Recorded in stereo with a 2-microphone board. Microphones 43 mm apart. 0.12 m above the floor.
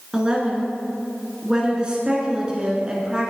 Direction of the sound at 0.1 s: 20° right (ahead or behind).